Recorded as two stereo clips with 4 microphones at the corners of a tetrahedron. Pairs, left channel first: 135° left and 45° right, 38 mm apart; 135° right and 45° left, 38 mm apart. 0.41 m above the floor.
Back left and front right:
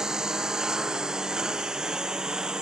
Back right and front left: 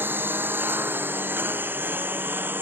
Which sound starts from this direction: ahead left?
A lawn mower, at 0.0 s.